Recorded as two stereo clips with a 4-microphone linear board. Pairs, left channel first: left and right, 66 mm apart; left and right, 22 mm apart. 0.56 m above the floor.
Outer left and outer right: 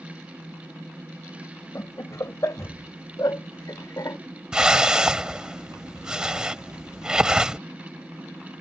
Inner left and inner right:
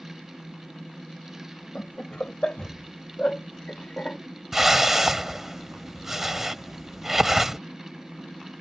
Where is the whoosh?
10° right (ahead or behind).